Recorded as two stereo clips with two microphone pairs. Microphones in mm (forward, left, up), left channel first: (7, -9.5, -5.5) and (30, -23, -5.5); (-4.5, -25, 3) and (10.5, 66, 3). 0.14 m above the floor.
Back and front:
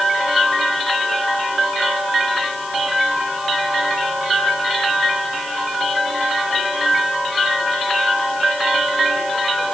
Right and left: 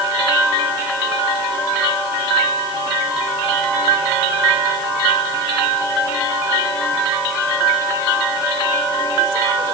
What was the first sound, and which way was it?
Only background noise.